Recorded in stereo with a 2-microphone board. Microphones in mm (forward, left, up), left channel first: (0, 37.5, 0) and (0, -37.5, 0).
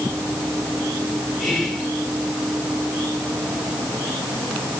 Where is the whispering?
5° left (ahead or behind), 1.3 m.